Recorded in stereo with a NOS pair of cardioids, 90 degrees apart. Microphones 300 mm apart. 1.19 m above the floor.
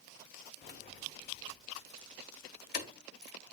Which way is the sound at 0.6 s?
35° left.